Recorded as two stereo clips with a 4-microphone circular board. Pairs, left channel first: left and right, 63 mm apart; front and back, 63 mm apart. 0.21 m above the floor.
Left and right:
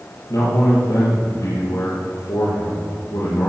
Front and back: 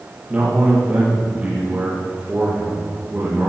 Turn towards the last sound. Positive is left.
turn(degrees=110)